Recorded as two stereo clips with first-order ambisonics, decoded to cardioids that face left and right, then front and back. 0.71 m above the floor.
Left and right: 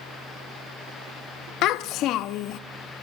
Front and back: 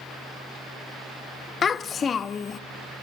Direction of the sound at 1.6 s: 65° left.